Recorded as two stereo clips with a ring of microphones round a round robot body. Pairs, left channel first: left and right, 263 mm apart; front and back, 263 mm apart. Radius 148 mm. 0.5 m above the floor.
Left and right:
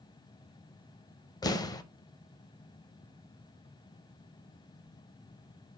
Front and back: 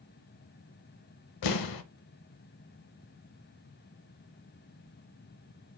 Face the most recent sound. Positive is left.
turn(degrees=15)